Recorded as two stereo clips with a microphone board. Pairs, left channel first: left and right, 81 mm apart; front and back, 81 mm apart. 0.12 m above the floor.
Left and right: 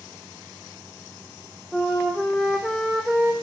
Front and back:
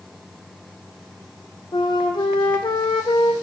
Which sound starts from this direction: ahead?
A flute, at 1.7 s.